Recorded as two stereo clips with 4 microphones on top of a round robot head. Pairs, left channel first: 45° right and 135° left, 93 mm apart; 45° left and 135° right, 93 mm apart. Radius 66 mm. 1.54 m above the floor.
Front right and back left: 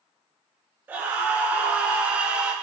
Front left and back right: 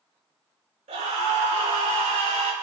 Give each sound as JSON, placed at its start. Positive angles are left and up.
{"t": 0.9, "sound": "a scream", "azimuth_deg": -150, "distance_m": 7.5}